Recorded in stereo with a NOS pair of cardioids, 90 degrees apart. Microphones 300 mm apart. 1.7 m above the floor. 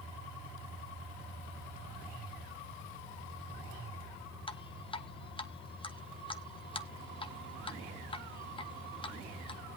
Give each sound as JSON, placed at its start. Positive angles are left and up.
{"t": 4.5, "sound": "dripping", "azimuth_deg": 20, "distance_m": 1.2}